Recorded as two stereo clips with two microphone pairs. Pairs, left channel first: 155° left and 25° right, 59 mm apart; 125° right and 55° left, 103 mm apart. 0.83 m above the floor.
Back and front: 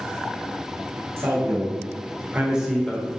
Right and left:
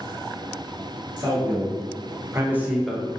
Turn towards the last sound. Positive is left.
turn(degrees=-170)